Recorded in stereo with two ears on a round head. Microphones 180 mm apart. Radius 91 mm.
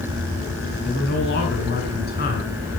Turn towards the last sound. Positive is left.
turn(degrees=50)  # may be behind; listen again after turning